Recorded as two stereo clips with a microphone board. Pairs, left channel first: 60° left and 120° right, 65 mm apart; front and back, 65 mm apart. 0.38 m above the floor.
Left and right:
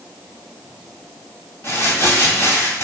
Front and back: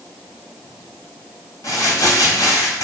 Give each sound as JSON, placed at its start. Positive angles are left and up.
{"t": 1.6, "sound": "crumpling", "azimuth_deg": 25, "distance_m": 2.5}